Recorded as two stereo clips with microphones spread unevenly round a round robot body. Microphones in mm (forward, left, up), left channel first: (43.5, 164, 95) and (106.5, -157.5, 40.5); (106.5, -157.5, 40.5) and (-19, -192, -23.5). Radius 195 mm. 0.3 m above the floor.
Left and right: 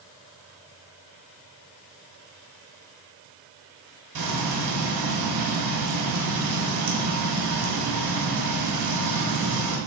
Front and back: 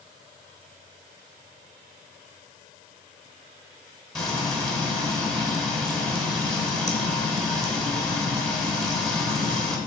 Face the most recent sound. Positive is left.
turn(degrees=-90)